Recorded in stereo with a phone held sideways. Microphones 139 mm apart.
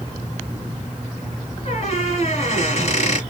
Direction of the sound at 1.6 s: 50° left (ahead or behind).